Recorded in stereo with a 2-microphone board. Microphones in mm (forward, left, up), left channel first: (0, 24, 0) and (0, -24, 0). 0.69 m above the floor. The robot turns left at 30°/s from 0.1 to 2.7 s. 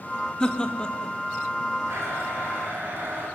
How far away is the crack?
I don't hear a crack.